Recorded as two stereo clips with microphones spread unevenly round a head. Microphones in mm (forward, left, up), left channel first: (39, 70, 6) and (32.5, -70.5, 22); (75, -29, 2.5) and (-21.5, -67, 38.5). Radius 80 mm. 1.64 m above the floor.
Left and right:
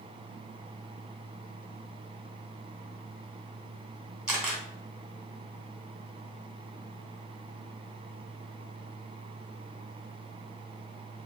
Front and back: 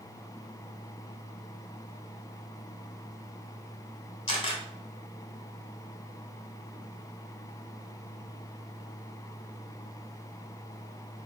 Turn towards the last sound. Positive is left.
turn(degrees=-15)